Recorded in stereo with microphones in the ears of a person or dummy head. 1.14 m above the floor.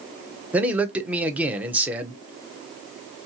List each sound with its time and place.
0.5 s a man speaking: 10° right (ahead or behind), 0.5 m